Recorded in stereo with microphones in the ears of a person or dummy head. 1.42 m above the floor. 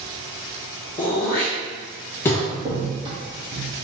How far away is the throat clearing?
About 0.6 m.